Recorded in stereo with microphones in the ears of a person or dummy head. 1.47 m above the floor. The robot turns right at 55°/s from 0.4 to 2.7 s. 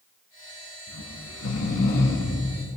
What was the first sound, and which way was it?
Snoring, 80° left.